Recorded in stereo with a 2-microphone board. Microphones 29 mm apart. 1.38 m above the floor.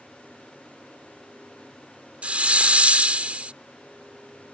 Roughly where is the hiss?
Right.